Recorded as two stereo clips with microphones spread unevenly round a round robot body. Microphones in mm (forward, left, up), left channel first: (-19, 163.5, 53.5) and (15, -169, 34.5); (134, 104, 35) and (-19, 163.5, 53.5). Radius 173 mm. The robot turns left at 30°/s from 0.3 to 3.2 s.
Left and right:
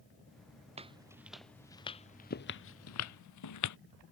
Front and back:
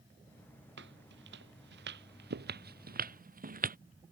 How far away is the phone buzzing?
No phone buzzing in this recording.